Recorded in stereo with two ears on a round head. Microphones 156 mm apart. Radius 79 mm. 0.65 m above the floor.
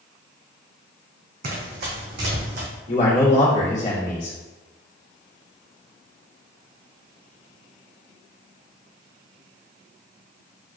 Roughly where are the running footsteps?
Right.